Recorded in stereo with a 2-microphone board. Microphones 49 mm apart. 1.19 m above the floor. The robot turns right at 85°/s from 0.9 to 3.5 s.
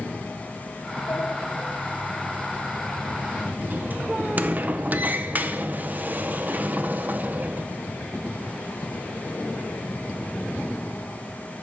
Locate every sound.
1.1 s a sliding door: 55° left (ahead or behind), 0.6 m; by 7.7 s 35° right (ahead or behind), 0.6 m